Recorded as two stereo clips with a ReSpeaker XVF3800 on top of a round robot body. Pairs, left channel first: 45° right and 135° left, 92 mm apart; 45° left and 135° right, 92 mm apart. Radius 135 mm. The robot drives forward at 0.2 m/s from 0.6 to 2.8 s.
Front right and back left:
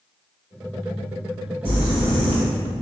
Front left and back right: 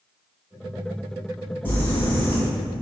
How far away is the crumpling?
About 3 m.